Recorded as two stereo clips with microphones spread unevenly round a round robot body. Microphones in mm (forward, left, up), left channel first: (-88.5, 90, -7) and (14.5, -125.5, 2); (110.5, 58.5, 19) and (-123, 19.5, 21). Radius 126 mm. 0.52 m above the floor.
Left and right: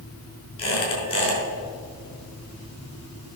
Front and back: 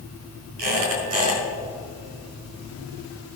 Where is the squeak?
175° right, 5 m.